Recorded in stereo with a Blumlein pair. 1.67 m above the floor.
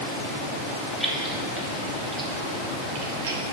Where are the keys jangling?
Straight ahead, 2.5 m; by 3.4 s 75° right, 0.8 m.